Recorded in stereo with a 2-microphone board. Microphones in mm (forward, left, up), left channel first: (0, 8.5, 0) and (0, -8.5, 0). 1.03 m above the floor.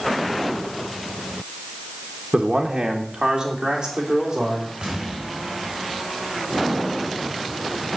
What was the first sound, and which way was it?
A man speaking, 60° right (ahead or behind).